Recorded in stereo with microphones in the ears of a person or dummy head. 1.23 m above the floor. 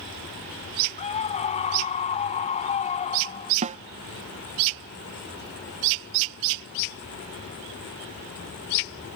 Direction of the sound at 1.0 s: 35° left (ahead or behind).